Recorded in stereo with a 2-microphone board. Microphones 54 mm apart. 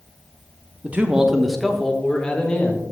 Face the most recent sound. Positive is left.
turn(degrees=25)  # may be behind; listen again after turning